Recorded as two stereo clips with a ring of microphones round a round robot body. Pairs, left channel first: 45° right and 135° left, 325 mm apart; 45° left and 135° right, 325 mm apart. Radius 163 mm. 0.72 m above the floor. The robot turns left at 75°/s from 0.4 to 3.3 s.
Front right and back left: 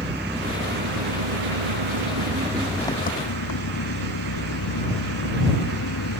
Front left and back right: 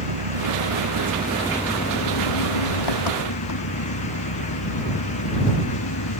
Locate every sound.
0.0 s an engine running: 140° right; by 6.2 s straight ahead